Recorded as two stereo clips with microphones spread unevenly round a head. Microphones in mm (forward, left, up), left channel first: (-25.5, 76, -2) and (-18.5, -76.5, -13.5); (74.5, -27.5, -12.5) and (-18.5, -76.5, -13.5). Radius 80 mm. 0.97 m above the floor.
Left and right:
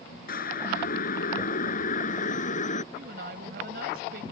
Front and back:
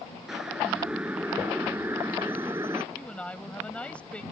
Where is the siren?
120° left; by 2.8 s 130° left.